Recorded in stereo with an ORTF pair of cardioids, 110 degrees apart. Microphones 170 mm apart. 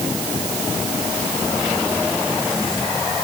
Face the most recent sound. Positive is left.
No sound to turn to.